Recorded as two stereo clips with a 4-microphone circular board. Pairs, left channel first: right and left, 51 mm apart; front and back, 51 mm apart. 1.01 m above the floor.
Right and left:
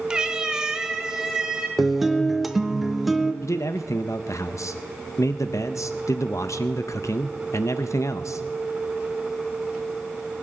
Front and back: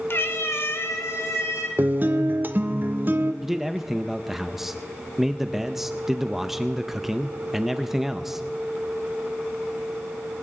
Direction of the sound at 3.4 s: 95° right.